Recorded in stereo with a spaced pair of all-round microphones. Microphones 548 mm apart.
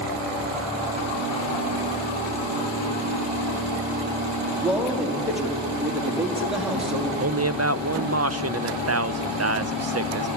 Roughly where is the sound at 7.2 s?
Right.